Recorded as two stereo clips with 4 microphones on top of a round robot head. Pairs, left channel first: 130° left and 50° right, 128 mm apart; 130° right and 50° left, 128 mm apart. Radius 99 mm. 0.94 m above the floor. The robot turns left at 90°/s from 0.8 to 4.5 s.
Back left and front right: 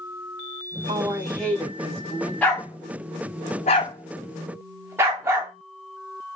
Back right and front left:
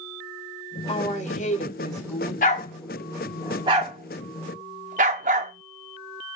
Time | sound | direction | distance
0.9 | a woman speaking | 95° right | 1.9 m
2.4 | a dog barking | 150° right | 0.6 m